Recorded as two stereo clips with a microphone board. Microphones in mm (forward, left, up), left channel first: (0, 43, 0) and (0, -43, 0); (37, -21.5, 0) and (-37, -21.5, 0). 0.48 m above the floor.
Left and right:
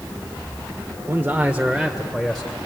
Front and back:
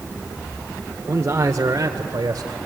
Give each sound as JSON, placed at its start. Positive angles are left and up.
{"t": 1.1, "sound": "a man speaking", "azimuth_deg": -140, "distance_m": 1.0}